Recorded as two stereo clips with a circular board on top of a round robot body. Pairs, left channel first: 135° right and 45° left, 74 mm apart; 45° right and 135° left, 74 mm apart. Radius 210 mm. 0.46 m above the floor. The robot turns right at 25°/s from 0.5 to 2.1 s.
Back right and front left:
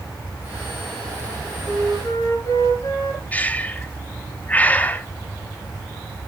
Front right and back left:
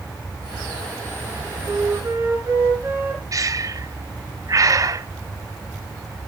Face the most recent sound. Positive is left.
turn(degrees=160)